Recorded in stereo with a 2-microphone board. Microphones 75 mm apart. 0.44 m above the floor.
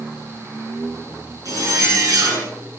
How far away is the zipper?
About 6.5 m.